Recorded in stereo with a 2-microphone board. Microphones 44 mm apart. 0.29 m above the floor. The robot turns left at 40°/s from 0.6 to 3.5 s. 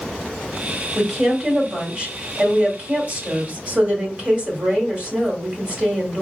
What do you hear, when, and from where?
0.9 s a woman speaking: 5° left, 1.4 m; by 6.2 s 95° right, 1.4 m